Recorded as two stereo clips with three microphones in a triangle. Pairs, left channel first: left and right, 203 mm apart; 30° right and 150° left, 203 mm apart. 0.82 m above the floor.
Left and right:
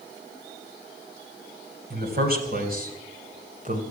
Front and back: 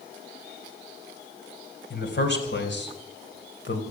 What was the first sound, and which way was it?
A man speaking, 55° right.